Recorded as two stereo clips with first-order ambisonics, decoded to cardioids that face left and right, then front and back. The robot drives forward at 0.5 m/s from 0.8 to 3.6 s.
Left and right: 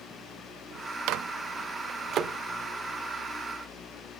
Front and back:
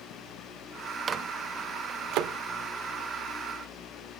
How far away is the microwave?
About 0.6 m.